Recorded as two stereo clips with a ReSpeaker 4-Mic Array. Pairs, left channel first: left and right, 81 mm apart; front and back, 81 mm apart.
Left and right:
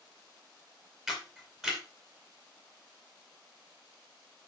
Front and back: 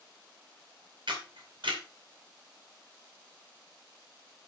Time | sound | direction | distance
1.1 | a camera shutter | 175° right | 4 m